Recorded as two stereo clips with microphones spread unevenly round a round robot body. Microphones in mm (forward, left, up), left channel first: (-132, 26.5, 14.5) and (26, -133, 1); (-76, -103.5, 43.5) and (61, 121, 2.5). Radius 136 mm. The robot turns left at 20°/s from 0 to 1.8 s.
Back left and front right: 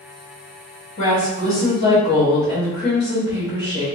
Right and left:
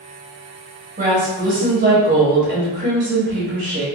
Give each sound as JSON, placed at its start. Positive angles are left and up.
{"t": 1.0, "sound": "a woman speaking", "azimuth_deg": 85, "distance_m": 1.1}